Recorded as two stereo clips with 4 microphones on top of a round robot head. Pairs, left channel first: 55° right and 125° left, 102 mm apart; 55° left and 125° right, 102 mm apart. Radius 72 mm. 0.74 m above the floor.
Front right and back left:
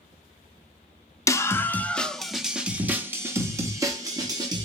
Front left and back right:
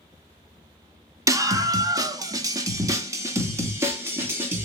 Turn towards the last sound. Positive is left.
turn(degrees=170)